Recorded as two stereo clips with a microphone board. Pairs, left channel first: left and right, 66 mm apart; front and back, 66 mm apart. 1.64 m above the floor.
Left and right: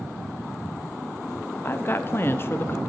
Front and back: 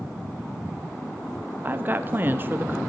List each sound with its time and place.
1.6 s a woman speaking: 130° left, 0.7 m